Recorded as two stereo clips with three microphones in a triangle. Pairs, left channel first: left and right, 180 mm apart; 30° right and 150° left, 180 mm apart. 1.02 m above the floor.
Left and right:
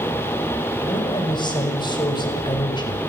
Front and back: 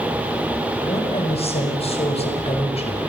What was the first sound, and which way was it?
A woman speaking, 25° left.